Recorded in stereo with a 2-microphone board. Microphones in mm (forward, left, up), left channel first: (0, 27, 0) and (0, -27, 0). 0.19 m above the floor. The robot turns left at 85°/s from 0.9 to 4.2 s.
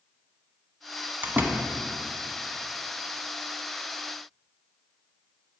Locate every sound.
1.2 s a door slam: 35° right (ahead or behind), 0.9 m